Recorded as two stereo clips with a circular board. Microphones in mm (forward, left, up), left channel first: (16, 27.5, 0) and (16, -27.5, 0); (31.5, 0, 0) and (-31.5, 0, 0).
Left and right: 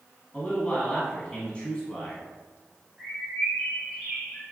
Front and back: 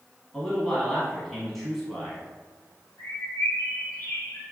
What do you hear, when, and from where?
0.3 s a man speaking: 85° left, 1.0 m
3.0 s a bird: 15° left, 1.6 m